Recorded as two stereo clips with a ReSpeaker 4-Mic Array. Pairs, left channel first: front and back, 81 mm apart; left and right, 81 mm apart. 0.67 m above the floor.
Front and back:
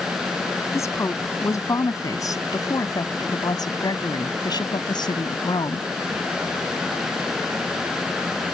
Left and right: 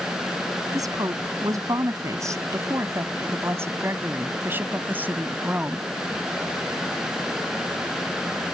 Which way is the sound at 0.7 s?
50° right.